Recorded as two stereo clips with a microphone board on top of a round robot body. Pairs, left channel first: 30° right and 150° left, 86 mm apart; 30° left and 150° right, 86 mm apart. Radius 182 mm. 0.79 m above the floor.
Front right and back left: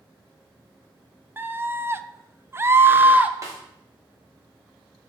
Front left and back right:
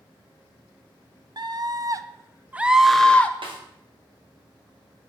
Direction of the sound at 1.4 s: 150° right.